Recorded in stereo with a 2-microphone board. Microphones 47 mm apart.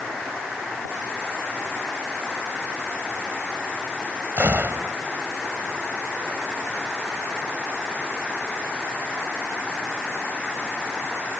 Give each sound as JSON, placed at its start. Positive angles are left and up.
{"t": 4.4, "sound": "a gunshot", "side_deg": -50}